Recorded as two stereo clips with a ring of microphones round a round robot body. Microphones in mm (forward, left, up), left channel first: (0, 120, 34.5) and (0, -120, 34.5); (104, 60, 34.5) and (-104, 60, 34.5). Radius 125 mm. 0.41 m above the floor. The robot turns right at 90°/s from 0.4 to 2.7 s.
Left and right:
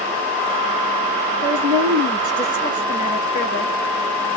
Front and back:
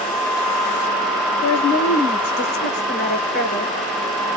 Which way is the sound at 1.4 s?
80° right.